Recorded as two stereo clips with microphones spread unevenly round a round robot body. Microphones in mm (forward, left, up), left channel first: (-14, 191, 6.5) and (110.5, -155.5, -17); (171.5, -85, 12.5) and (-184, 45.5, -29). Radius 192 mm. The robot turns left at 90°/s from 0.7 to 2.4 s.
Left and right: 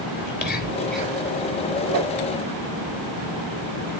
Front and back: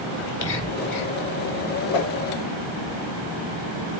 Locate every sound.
0.2 s whispering: 45° left, 2.5 m; by 1.2 s straight ahead, 2.5 m
1.9 s a whoosh: 20° right, 1.5 m; by 2.1 s 45° right, 1.5 m